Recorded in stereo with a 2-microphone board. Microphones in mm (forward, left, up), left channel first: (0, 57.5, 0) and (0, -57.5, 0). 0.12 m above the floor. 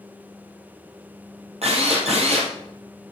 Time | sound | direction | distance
1.6 | a drill | 65° right (ahead or behind) | 3 m